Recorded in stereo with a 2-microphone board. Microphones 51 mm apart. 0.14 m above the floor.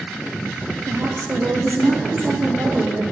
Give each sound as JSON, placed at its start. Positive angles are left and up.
{"t": 0.9, "sound": "a woman speaking", "side_deg": -55, "distance_m": 4.0}